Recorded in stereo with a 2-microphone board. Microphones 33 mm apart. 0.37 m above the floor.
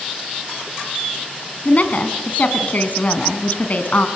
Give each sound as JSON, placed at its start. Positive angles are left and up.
{"t": 1.6, "sound": "a woman speaking", "side_deg": 50, "distance_m": 2.5}